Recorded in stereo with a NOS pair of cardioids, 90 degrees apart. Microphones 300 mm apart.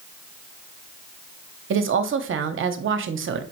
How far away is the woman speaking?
About 0.7 m.